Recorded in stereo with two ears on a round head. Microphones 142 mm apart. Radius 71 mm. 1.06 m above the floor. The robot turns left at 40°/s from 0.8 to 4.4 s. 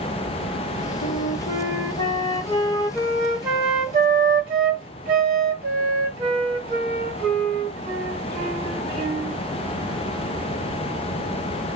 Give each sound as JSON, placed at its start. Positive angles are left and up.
{"t": 1.0, "sound": "a flute", "azimuth_deg": 75, "distance_m": 1.8}